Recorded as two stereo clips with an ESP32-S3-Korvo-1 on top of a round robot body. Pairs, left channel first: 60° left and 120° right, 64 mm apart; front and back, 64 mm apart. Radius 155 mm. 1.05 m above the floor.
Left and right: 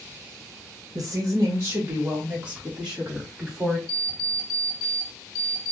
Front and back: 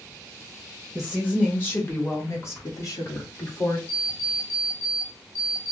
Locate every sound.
0.9 s a woman speaking: 80° right, 1.3 m; by 3.8 s 35° right, 2.5 m
3.9 s an alarm clock: 50° left, 0.5 m